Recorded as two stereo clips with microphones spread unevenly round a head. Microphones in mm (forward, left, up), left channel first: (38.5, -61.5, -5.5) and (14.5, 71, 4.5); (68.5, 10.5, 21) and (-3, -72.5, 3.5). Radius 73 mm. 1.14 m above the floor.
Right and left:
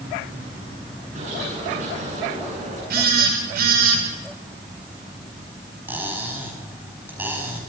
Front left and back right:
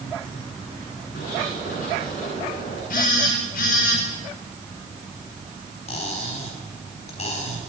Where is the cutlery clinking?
25° left, 5.5 m.